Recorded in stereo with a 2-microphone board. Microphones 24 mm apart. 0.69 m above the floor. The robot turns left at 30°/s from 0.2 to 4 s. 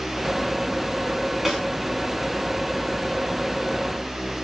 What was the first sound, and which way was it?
A snare drum, 5° right (ahead or behind).